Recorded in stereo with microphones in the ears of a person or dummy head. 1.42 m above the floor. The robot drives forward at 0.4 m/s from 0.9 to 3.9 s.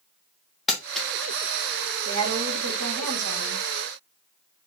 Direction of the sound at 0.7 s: Centre (ahead or behind).